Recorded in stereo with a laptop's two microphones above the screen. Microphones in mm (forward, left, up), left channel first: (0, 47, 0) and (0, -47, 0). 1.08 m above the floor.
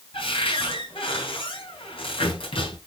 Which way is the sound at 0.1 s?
75° left (ahead or behind).